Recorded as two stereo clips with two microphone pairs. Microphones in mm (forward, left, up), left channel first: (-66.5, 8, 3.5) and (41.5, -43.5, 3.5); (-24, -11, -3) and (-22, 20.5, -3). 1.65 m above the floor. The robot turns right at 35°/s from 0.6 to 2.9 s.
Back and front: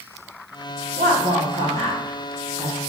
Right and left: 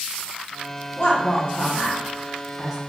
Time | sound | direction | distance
1.0 | a woman speaking | 40° right | 1.3 m